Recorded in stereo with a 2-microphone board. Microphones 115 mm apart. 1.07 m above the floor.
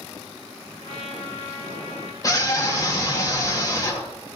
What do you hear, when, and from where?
0.8 s a trumpet: 85° left, 4.5 m
2.2 s a scream: 30° left (ahead or behind), 2 m